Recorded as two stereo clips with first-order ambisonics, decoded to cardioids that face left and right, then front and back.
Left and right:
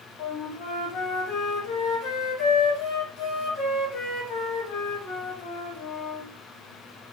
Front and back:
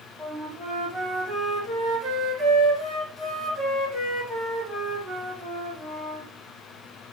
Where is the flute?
100° left, 1.3 m.